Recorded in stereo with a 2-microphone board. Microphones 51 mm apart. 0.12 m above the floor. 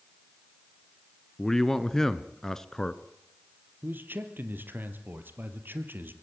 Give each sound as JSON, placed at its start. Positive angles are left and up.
{"t": 1.4, "sound": "a man speaking", "side_deg": 10, "distance_m": 1.4}
{"t": 3.8, "sound": "a man speaking", "side_deg": -40, "distance_m": 3.0}